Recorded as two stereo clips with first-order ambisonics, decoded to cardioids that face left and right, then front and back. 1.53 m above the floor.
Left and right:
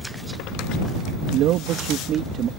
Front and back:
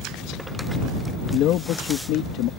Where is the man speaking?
50° right; by 2.5 s 30° right.